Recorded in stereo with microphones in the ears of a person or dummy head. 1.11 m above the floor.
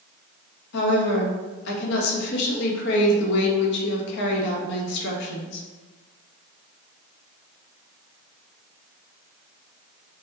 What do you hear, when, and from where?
0.7 s a woman speaking: 65° left (ahead or behind), 1.2 m